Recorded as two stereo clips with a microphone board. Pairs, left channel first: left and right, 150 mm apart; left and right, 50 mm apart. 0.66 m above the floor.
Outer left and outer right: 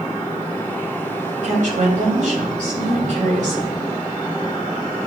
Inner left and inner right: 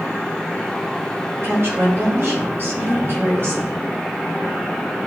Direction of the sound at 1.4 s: 55° right (ahead or behind).